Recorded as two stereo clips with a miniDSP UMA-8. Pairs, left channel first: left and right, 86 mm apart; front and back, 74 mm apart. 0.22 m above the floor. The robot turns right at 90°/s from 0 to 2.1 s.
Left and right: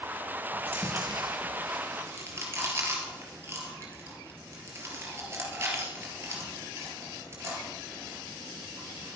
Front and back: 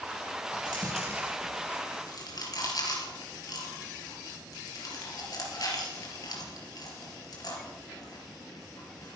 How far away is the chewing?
About 3.5 m.